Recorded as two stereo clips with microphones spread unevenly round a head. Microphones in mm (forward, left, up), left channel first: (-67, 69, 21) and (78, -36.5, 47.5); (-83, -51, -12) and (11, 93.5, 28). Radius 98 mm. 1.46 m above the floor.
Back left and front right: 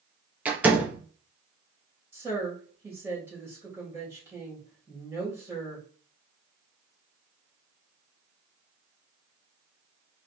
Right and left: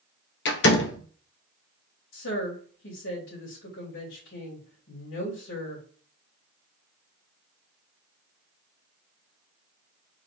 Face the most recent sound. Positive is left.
turn(degrees=-115)